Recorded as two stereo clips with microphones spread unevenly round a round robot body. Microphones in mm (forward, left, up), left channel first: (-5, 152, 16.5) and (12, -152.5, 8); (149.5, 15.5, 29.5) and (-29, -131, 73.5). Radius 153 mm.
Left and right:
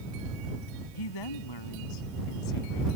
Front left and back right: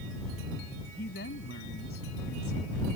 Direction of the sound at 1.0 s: 100° left.